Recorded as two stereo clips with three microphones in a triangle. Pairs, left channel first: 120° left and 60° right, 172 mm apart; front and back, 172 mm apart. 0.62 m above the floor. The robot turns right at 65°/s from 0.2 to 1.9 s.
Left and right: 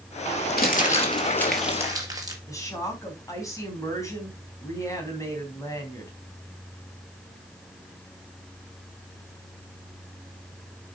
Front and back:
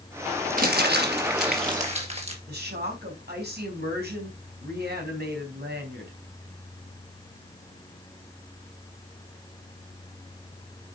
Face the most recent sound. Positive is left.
turn(degrees=-170)